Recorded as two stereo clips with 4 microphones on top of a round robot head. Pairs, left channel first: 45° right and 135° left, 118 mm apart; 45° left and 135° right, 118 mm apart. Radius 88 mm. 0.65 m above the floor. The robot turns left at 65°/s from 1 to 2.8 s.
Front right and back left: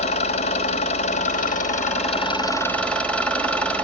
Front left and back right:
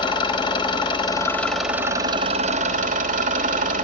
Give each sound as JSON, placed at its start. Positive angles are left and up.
{"t": 0.0, "sound": "an engine running", "azimuth_deg": -10, "distance_m": 2.5}